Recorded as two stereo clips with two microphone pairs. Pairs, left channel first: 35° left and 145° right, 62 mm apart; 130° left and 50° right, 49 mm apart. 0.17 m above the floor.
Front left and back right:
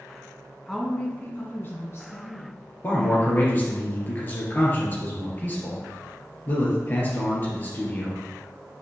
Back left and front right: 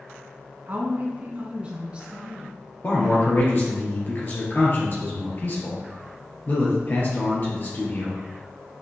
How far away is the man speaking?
About 3 m.